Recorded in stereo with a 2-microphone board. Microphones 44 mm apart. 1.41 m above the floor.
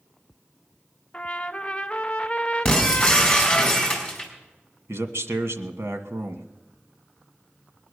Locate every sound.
1.1 s a trumpet: 25° left (ahead or behind), 0.7 m
2.6 s breaking glass: 15° left (ahead or behind), 4.5 m
4.9 s a man speaking: 75° right (ahead or behind), 1.5 m